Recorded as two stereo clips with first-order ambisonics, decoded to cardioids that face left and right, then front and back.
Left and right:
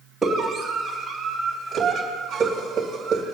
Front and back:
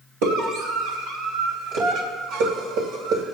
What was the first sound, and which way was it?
A scream, 170° right.